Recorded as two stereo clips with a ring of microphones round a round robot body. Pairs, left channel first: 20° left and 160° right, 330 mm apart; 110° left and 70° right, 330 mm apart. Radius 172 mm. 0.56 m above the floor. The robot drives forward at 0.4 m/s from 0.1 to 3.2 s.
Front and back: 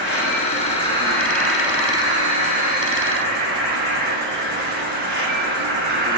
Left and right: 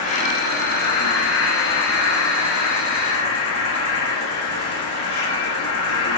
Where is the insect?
60° left, 1.0 m; by 6.2 s 150° left, 1.3 m.